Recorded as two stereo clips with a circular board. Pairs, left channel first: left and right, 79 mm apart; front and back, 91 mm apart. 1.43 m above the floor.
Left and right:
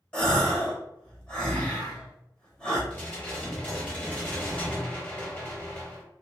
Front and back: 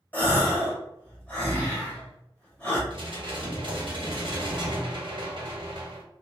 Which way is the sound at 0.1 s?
35° left.